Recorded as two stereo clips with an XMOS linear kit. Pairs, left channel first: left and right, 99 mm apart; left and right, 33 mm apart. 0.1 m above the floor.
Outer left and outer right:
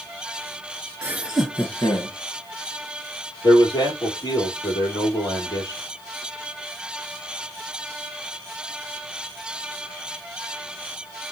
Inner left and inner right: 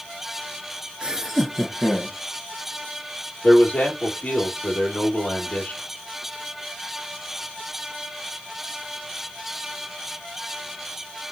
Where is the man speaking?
35° left (ahead or behind), 2.5 m.